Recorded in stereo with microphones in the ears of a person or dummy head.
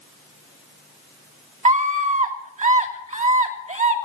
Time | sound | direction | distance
1.6 | a scream | 30° right (ahead or behind) | 3 m